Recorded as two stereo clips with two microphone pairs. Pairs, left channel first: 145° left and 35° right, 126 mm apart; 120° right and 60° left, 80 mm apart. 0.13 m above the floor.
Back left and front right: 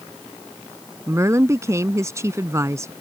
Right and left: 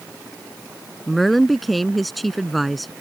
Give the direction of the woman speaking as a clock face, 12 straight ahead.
1 o'clock.